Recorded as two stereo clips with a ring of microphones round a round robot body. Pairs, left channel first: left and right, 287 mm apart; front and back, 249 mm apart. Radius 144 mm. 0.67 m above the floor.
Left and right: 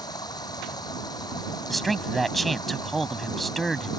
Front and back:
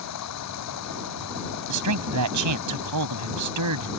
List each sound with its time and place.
0.0 s running water: 15° left
1.7 s a man speaking: straight behind